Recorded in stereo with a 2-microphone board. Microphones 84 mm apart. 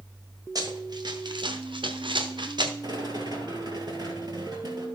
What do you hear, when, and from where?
0.6 s running footsteps: 50° right (ahead or behind), 2.0 m; by 2.7 s 60° right (ahead or behind), 1.5 m
2.8 s a rattle: 60° right (ahead or behind), 2.5 m